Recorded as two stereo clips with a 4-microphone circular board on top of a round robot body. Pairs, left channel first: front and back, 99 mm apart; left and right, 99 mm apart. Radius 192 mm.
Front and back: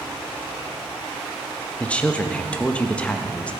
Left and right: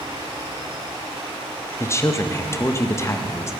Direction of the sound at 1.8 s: 65° left.